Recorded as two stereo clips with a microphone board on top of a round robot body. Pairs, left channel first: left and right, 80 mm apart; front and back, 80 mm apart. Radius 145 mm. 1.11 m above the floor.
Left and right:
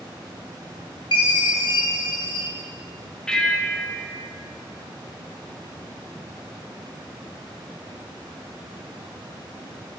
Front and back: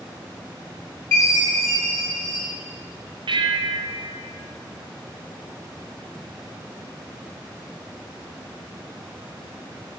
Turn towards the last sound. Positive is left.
turn(degrees=170)